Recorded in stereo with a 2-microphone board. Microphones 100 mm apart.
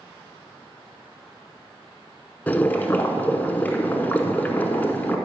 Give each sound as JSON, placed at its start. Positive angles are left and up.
{"t": 2.5, "sound": "boiling", "side_deg": 15, "distance_m": 0.9}